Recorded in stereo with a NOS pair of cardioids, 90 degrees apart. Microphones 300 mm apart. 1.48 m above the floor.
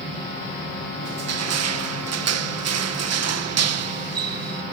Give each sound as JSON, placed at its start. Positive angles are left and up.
{"t": 1.0, "sound": "crushing", "azimuth_deg": -55}